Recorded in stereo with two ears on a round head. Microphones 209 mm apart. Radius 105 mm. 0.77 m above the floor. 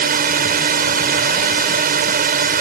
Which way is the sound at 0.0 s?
35° right (ahead or behind).